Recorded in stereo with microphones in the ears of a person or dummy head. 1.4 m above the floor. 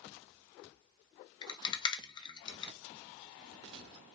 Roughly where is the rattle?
Left.